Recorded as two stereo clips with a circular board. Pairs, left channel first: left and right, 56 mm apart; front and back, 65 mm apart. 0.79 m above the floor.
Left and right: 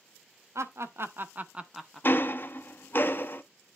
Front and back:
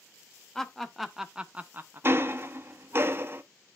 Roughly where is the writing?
I don't hear writing.